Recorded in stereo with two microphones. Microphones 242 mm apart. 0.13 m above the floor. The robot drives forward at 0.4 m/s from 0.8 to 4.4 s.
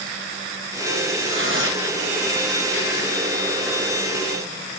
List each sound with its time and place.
1.2 s tearing paper: 50° right (ahead or behind), 3.5 m